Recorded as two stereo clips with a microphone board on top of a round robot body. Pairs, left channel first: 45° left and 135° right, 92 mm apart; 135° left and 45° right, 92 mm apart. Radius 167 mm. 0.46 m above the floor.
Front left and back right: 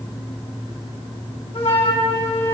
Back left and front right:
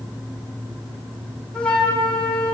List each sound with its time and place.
1.5 s a flute: 55° left, 7 m